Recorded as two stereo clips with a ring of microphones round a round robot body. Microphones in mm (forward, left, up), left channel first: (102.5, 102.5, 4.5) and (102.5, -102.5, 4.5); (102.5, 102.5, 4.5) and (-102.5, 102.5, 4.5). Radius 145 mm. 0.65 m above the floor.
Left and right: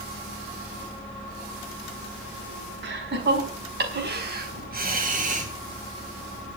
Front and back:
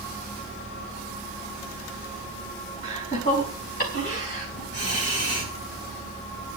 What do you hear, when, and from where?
2.8 s laughter: 65° right, 5.5 m; by 5.5 s 40° right, 3.5 m